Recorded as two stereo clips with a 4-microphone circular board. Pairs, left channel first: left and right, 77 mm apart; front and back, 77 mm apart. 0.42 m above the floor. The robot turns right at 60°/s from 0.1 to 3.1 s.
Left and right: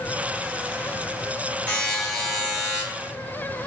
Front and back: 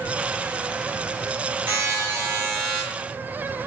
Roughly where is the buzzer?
Behind left.